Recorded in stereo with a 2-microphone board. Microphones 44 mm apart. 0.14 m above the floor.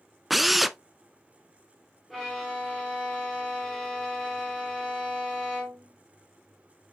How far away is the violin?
About 3.5 m.